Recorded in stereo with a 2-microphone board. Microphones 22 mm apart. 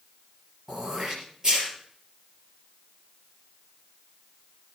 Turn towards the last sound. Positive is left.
turn(degrees=-30)  # may be behind; listen again after turning